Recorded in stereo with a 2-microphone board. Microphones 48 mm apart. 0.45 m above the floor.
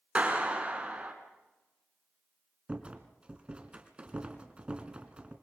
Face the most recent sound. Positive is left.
turn(degrees=-25)  # may be behind; listen again after turning